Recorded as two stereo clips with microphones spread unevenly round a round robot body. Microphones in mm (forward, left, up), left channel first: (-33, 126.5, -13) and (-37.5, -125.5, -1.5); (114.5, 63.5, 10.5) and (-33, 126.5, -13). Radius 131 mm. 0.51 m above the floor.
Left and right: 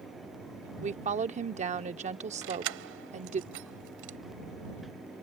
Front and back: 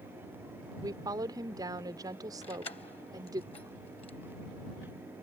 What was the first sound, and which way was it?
A woman speaking, 145° right.